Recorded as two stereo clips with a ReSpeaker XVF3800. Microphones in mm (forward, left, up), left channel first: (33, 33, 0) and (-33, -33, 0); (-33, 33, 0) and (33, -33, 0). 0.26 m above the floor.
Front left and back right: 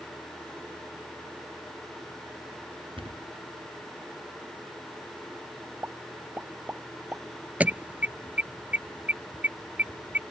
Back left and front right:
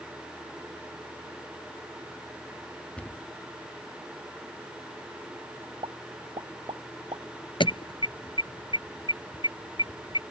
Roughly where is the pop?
Ahead right.